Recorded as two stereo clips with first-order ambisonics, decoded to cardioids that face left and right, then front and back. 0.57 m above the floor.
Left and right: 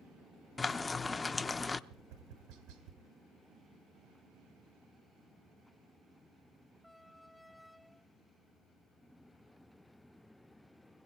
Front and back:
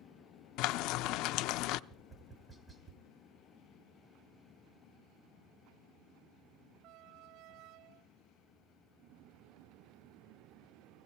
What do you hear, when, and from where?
0.6 s frying: 10° left, 0.5 m
1.9 s tapping: 95° right, 2 m